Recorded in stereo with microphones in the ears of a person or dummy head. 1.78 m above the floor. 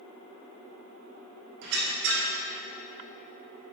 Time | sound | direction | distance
1.6 | a squeak | 60° right (ahead or behind) | 1.5 m